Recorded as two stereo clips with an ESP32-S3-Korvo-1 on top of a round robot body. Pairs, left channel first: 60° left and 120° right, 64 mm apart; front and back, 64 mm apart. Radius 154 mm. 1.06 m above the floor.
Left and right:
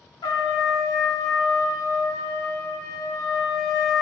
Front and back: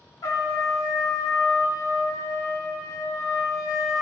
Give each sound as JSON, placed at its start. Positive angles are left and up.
{"t": 0.2, "sound": "a trumpet", "azimuth_deg": 40, "distance_m": 1.4}